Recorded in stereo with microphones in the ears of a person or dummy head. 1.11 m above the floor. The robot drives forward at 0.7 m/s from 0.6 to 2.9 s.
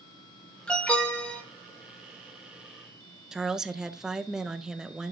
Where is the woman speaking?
Centre (ahead or behind), 0.7 m.